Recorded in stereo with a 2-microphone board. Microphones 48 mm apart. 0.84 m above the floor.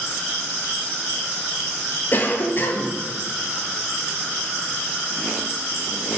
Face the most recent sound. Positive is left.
turn(degrees=40)  # may be behind; listen again after turning